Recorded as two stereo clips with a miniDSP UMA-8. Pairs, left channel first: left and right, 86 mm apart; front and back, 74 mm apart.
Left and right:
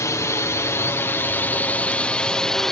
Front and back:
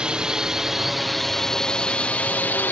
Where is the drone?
110° left; by 2.7 s 10° left.